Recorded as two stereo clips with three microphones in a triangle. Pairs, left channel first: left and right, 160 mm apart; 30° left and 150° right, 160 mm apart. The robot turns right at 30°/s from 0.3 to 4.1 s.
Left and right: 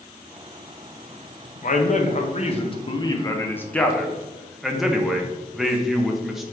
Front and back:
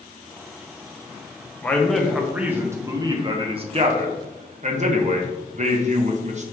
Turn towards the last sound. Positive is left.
turn(degrees=180)